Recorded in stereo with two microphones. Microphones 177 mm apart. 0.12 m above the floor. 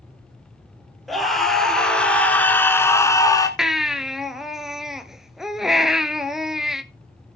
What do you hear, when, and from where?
1.1 s a scream: centre (ahead or behind), 2 m; by 3.5 s 20° left (ahead or behind), 1.1 m
3.6 s a baby crying: 5° right (ahead or behind), 0.7 m